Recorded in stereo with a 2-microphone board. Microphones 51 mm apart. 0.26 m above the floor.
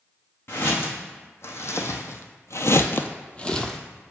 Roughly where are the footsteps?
Left.